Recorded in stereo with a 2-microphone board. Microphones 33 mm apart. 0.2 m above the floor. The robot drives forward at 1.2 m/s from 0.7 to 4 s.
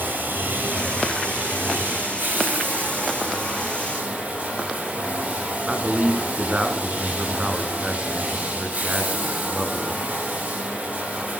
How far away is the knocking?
No knocking in this recording.